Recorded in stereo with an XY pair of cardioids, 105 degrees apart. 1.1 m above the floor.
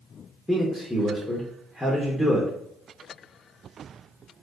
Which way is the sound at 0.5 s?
5° left.